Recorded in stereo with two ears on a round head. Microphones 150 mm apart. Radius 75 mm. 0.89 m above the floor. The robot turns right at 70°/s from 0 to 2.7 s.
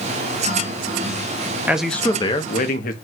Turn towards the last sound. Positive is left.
turn(degrees=60)